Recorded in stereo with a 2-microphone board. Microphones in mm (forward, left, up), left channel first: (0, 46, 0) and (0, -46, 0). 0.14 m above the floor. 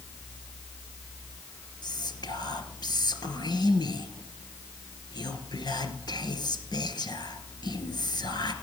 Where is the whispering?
55° left (ahead or behind), 2 m.